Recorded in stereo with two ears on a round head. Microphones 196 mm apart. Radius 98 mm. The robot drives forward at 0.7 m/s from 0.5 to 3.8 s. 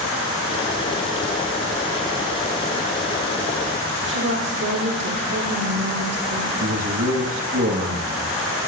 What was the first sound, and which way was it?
A woman speaking, 55° right (ahead or behind).